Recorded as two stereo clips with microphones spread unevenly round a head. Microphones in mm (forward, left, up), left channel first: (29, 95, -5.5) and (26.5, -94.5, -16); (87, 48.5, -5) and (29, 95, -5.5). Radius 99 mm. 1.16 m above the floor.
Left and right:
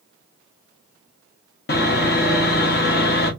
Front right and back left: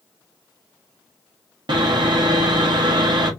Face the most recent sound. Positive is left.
turn(degrees=130)